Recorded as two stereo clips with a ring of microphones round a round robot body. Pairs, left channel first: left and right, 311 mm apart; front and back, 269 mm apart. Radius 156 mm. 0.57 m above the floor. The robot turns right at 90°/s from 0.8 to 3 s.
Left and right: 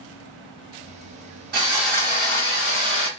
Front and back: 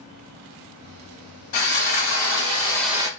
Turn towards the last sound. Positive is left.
turn(degrees=100)